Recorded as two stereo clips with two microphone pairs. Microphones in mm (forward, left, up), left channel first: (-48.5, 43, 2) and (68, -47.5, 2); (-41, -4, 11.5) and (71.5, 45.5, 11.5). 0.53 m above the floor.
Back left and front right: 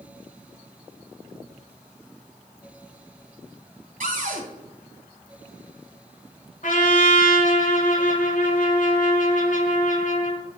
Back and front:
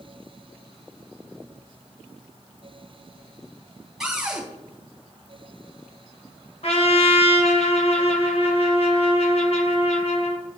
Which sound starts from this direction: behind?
A trumpet, at 6.6 s.